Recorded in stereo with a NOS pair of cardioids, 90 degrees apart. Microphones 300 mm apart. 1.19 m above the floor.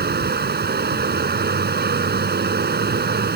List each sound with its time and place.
0.0 s running water: 35° right